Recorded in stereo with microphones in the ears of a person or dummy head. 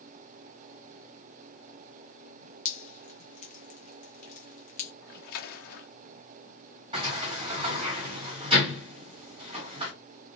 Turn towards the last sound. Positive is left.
turn(degrees=-25)  # may be behind; listen again after turning